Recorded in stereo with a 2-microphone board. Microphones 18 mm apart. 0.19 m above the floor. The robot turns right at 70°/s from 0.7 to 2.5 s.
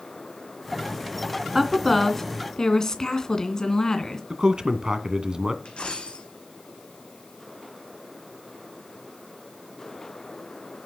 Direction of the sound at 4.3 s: 40° right (ahead or behind).